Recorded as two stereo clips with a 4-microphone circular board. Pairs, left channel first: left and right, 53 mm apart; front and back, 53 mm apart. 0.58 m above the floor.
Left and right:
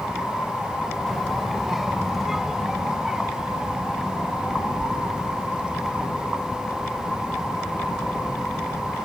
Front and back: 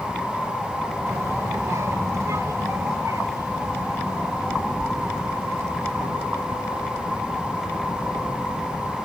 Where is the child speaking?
175° left; by 6.1 s 160° right.